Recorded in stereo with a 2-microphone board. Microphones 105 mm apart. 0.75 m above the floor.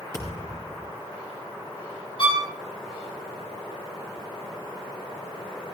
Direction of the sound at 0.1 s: 30° left (ahead or behind).